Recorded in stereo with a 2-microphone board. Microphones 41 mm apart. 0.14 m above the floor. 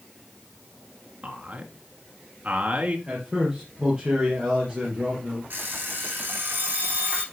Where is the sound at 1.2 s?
30° right (ahead or behind), 2 m.